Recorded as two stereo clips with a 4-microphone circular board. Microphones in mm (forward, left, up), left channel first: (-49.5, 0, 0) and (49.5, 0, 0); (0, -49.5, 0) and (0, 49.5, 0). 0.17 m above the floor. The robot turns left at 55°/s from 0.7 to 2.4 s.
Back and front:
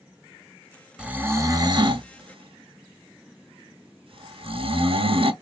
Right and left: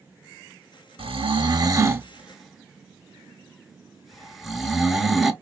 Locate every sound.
1.0 s snoring: 80° left, 0.6 m; by 5.3 s straight ahead, 0.6 m